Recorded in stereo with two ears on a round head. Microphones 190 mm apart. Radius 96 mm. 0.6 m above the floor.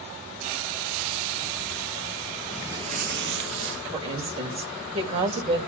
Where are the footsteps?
Centre (ahead or behind), 0.9 m; by 3.8 s 65° right (ahead or behind), 1.7 m.